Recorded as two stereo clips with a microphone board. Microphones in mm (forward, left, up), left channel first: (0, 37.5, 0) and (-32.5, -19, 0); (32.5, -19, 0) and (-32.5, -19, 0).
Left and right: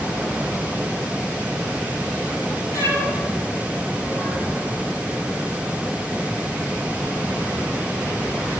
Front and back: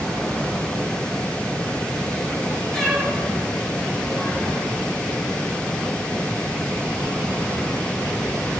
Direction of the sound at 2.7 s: 85° left.